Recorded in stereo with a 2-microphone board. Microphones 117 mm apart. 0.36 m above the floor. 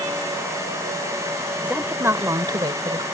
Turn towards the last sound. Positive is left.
turn(degrees=-45)  # may be behind; listen again after turning